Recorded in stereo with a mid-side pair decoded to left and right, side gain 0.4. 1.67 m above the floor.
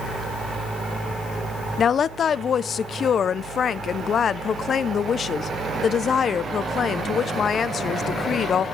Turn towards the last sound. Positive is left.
turn(degrees=55)